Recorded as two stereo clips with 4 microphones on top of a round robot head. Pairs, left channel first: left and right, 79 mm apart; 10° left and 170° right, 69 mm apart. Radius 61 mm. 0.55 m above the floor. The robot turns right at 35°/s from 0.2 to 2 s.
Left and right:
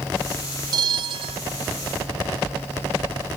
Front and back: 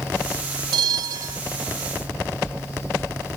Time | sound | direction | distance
0.7 | a bell | 135° right | ?